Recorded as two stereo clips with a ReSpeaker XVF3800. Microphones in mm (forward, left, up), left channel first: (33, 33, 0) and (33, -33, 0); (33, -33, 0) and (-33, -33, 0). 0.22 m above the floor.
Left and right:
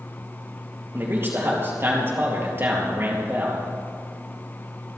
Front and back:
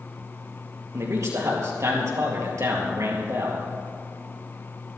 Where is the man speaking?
140° right, 3.5 m.